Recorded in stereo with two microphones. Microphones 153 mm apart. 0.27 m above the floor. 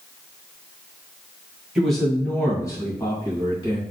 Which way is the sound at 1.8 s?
5° right (ahead or behind).